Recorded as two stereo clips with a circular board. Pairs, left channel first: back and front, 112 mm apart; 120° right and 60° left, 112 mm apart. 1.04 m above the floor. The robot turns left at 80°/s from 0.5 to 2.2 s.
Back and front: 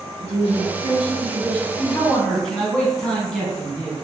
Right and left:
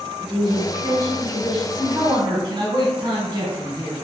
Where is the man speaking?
130° left, 1.1 m; by 4.0 s 95° left, 1.1 m.